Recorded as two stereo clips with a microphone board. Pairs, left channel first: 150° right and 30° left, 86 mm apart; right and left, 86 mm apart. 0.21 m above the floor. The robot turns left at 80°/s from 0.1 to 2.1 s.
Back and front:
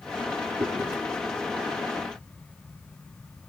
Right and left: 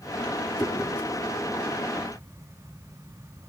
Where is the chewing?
20° right, 5.5 m; by 0.9 s 45° right, 5.5 m.